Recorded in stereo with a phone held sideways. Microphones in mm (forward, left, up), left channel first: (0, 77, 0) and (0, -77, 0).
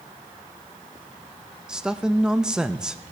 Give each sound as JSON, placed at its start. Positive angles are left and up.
{"t": 1.7, "sound": "a man speaking", "side_deg": -5, "distance_m": 0.6}